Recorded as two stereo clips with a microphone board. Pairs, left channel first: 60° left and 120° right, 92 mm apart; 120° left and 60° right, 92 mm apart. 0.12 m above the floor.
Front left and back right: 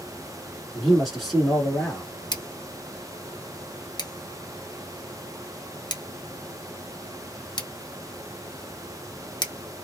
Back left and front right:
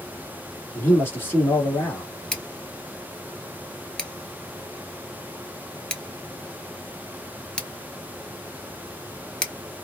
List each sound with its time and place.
0.8 s a man speaking: 145° left, 1.4 m
2.3 s scissors: 40° left, 0.9 m